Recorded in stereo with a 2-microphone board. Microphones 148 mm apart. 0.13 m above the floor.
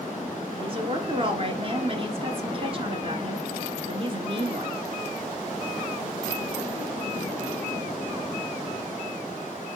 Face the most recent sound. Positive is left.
turn(degrees=-40)  # may be behind; listen again after turning